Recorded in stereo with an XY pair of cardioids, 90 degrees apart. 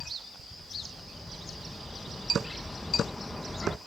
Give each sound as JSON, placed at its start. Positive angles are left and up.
{"t": 0.5, "sound": "a bird", "azimuth_deg": 15}